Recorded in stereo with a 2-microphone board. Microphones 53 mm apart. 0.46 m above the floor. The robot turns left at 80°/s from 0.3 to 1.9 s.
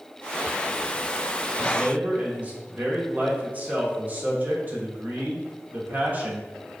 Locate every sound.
1.6 s a man speaking: 25° right (ahead or behind), 1.1 m; by 6.7 s 30° right (ahead or behind), 1.1 m